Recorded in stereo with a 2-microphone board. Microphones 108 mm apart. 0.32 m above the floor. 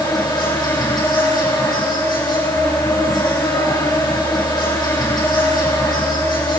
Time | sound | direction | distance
0.0 | an insect | 40° left (ahead or behind) | 10 m